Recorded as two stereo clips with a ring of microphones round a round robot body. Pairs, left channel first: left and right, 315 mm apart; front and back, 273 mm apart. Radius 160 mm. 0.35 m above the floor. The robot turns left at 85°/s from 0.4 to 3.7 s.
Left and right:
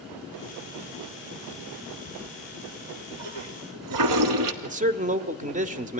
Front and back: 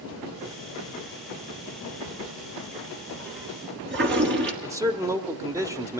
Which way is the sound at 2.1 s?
20° left.